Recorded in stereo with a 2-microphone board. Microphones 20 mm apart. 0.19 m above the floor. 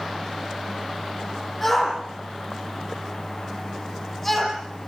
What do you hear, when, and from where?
1.6 s a shout: 15° left (ahead or behind), 9 m